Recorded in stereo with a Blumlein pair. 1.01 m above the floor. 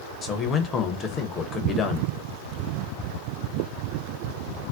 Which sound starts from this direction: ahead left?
A man speaking, at 0.2 s.